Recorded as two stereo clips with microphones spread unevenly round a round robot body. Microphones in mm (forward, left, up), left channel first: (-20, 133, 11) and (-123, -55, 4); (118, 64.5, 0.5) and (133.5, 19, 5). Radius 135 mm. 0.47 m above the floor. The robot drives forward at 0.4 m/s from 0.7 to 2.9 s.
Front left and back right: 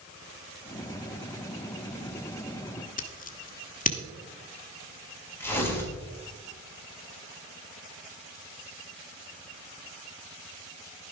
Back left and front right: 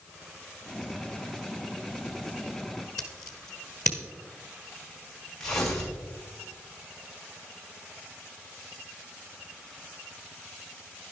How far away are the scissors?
About 1.3 m.